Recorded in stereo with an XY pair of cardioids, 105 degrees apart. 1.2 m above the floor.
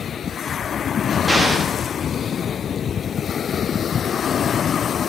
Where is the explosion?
Straight ahead, 2.5 m.